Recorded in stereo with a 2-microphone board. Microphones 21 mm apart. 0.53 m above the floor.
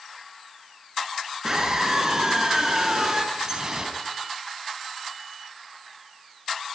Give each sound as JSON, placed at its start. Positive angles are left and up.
{"t": 1.4, "sound": "a scream", "side_deg": -25, "distance_m": 7.0}
{"t": 3.3, "sound": "dripping", "side_deg": -30, "distance_m": 4.0}